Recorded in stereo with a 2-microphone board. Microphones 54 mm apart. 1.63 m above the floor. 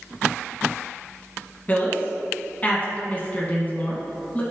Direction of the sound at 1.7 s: 30° left (ahead or behind).